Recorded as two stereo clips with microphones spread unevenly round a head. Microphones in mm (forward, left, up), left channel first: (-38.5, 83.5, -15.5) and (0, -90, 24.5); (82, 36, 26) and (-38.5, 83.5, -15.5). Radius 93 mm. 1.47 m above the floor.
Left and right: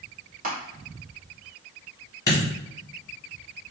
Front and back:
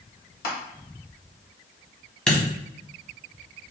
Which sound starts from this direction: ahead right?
Crushing, at 0.4 s.